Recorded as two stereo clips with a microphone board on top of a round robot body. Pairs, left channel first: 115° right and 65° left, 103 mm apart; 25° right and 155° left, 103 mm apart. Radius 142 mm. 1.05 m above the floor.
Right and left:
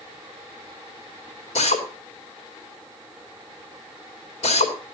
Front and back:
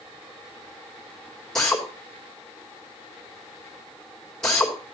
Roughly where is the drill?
Right.